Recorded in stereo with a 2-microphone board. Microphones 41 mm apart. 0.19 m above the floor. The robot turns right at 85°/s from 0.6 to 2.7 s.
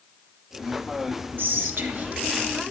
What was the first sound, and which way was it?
Whispering, 105° right.